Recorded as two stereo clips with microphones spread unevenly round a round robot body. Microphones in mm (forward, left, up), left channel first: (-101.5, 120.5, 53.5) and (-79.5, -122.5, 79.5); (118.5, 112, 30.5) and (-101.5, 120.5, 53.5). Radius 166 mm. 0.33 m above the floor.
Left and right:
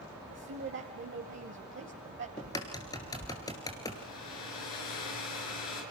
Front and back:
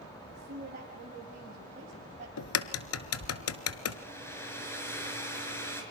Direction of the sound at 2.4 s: 15° left.